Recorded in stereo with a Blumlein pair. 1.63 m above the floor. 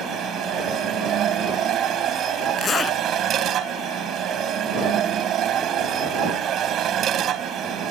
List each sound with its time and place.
0.0 s a machine running: 30° right
2.6 s a zipper: 20° left